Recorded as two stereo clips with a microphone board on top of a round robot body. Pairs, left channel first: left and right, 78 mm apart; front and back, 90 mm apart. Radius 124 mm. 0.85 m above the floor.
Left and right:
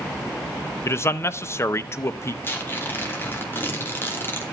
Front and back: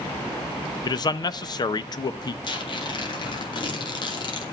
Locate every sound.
0.8 s a man speaking: 35° left, 0.8 m
2.4 s tearing paper: 30° left, 2.5 m